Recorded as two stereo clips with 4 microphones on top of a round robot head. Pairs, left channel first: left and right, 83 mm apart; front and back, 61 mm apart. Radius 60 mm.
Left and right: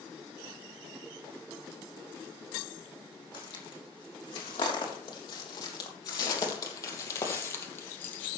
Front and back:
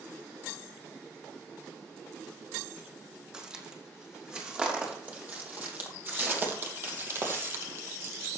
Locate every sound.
3.3 s footsteps: 105° left, 4.5 m; by 8.3 s 155° left, 2.5 m